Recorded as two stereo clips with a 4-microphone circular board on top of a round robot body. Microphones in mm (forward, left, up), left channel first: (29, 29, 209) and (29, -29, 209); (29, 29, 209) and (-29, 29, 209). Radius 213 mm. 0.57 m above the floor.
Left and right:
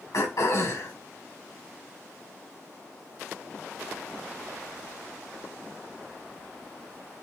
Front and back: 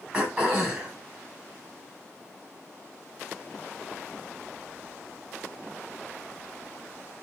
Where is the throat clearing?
105° left, 3 m.